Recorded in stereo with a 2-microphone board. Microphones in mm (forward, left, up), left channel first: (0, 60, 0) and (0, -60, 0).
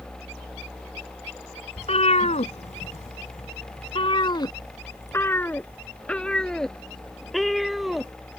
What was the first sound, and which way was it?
A cat meowing, 60° left (ahead or behind).